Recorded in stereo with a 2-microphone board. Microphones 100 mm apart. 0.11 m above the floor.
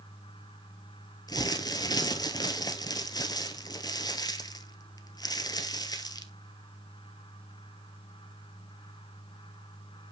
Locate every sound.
1.3 s crumpling: 40° left (ahead or behind), 1.1 m